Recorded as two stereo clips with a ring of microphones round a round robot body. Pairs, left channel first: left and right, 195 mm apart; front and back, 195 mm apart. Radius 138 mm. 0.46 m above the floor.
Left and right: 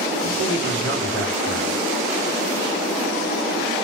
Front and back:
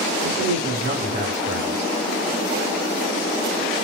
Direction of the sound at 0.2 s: 135° right.